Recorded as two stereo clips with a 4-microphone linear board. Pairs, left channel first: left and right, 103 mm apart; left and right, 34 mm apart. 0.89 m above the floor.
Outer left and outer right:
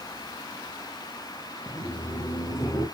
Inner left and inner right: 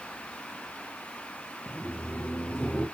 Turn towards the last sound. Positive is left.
turn(degrees=45)  # may be behind; listen again after turning